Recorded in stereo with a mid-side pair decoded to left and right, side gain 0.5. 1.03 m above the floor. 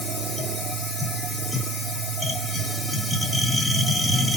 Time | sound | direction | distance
0.0 | a machine running | 10° left | 2.5 m